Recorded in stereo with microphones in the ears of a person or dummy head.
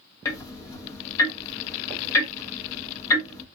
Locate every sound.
0.2 s ticking: 20° left (ahead or behind), 0.9 m